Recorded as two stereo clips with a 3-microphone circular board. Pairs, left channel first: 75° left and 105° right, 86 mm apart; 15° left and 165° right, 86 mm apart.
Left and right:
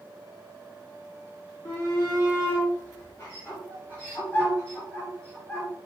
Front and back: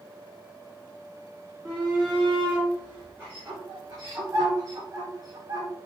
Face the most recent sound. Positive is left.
turn(degrees=155)